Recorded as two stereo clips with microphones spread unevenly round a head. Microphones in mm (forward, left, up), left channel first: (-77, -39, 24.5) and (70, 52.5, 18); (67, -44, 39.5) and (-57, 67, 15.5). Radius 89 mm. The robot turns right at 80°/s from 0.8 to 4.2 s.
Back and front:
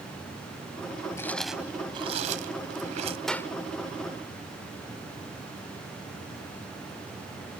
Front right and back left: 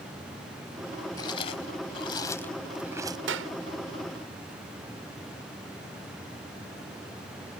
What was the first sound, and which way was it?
Chewing, 85° right.